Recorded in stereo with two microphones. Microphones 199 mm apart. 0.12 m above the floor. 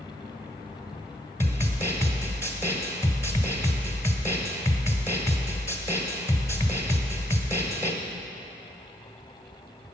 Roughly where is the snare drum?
Centre.